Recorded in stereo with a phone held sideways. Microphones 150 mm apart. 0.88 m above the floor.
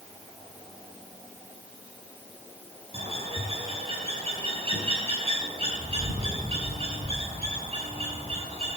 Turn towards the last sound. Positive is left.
turn(degrees=-40)  # may be behind; listen again after turning